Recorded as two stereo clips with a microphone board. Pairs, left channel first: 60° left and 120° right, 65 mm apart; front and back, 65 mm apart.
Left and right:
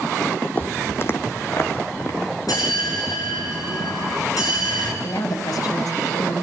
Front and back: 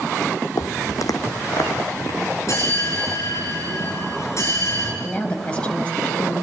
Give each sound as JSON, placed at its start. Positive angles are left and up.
{"t": 0.6, "sound": "footsteps", "azimuth_deg": 5, "distance_m": 1.1}
{"t": 2.5, "sound": "a bell", "azimuth_deg": 40, "distance_m": 6.5}
{"t": 5.0, "sound": "a woman speaking", "azimuth_deg": 70, "distance_m": 4.0}